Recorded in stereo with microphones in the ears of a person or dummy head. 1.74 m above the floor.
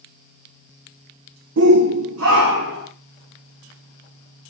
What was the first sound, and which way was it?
A shout, 70° right (ahead or behind).